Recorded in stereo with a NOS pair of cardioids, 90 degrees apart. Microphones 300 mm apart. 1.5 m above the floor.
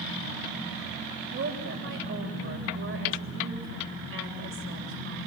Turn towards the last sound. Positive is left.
turn(degrees=-40)